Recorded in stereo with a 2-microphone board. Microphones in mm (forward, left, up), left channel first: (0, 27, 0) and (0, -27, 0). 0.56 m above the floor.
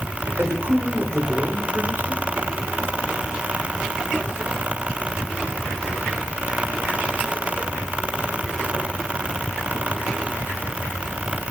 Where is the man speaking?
50° right (ahead or behind), 1.4 m.